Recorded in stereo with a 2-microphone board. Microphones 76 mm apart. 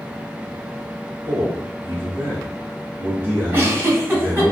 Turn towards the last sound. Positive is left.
turn(degrees=-30)  # may be behind; listen again after turning